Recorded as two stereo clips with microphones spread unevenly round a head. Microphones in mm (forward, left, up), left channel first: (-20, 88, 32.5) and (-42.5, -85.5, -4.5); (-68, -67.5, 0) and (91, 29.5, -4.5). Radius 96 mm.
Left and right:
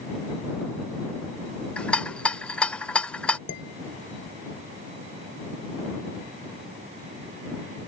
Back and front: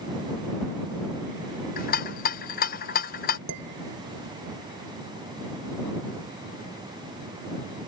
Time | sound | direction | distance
1.8 | a rattle | 165° left | ?
3.5 | dishes clattering | 50° left | ?